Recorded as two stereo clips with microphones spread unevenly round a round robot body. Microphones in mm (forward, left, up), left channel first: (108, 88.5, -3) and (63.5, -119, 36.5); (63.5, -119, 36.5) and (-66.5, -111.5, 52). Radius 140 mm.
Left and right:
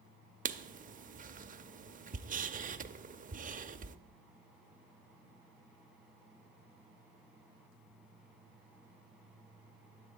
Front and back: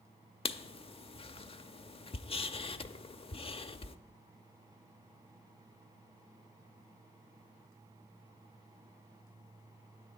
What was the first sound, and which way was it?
Writing, 55° right.